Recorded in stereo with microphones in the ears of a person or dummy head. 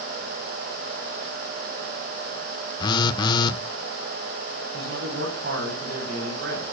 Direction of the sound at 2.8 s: 30° left (ahead or behind).